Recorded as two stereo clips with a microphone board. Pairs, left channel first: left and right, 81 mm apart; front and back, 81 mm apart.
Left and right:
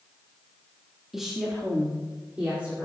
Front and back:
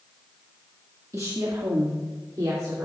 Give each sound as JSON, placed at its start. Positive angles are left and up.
{"t": 1.1, "sound": "a woman speaking", "azimuth_deg": -175, "distance_m": 1.3}